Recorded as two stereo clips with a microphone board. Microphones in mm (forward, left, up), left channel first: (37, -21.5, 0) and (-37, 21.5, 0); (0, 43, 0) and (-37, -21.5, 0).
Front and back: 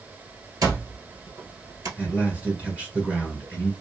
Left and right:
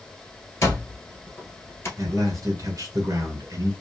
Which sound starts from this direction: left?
An alarm clock, at 0.6 s.